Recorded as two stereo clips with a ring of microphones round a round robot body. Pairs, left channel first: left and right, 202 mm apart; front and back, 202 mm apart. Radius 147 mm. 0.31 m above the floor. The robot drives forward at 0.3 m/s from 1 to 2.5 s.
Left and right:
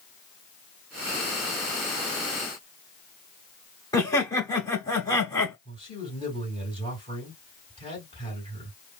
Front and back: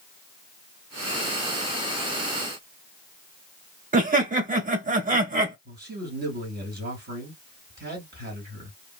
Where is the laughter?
155° left, 1.2 m.